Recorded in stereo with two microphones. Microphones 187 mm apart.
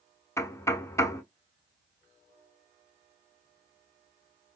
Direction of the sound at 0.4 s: 15° left (ahead or behind).